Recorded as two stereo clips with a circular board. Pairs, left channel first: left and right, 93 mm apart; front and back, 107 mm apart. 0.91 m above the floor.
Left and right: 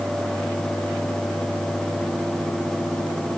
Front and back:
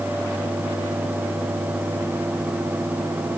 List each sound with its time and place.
Only background noise.